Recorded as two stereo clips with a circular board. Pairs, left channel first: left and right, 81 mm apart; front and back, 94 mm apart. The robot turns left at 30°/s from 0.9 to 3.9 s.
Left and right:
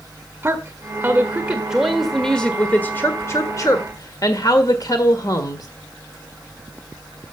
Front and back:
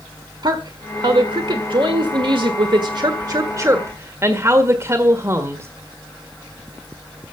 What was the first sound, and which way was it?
A woman speaking, 150° right.